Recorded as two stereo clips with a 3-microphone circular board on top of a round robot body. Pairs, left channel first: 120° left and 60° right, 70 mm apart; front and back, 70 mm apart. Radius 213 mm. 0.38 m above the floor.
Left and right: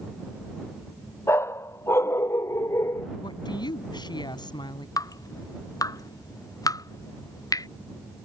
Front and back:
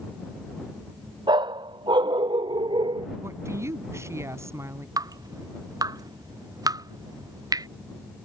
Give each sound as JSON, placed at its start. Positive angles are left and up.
{"t": 1.3, "sound": "a dog barking", "azimuth_deg": 175}
{"t": 3.2, "sound": "a woman speaking", "azimuth_deg": 130}
{"t": 5.0, "sound": "dripping", "azimuth_deg": 150}